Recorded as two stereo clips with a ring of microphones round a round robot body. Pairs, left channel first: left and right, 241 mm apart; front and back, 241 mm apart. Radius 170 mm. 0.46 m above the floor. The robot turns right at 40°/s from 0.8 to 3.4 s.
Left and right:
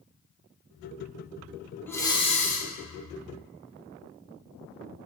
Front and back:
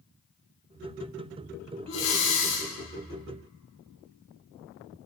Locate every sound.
1.9 s breathing: 10° left, 2 m; by 2.7 s 40° left, 2 m